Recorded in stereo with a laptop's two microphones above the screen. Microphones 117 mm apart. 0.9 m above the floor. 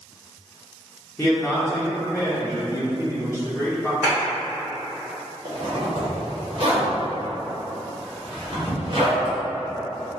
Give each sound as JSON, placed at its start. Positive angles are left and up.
{"t": 1.2, "sound": "a man speaking", "side_deg": 20, "distance_m": 0.6}
{"t": 4.0, "sound": "a clap", "side_deg": -20, "distance_m": 1.7}
{"t": 5.5, "sound": "a zipper", "side_deg": -50, "distance_m": 0.9}